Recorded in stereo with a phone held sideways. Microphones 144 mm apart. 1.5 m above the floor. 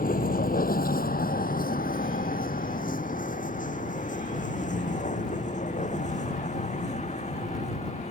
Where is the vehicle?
80° left; by 8.1 s 50° left (ahead or behind).